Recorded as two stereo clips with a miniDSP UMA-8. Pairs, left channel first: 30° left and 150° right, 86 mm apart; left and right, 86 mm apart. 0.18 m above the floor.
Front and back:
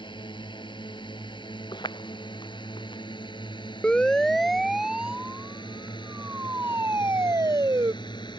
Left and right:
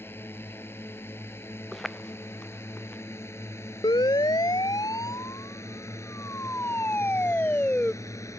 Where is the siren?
105° left; by 7.9 s 160° left.